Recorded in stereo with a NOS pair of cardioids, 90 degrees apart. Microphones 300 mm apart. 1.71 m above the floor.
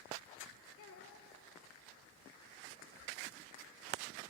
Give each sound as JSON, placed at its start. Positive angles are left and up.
{"t": 0.8, "sound": "a child speaking", "azimuth_deg": 50, "distance_m": 3.0}